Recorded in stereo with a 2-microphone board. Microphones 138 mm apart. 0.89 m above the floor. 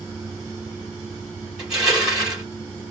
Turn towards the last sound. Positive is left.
turn(degrees=-5)  # may be behind; listen again after turning